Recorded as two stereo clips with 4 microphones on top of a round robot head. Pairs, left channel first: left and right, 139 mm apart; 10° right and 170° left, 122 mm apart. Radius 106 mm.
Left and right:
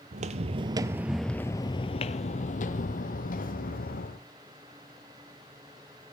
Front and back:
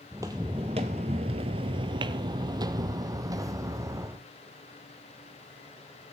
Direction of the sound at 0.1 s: 115° right.